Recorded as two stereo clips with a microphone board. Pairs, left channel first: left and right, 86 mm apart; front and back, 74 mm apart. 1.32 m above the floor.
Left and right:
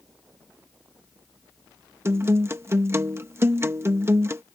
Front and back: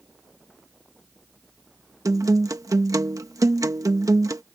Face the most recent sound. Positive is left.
turn(degrees=-145)